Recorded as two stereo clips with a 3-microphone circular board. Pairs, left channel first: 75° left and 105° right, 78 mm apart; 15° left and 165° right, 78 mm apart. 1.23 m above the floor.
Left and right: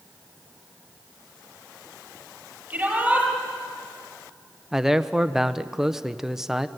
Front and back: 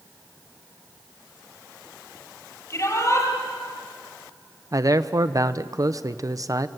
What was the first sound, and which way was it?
A shout, 35° right.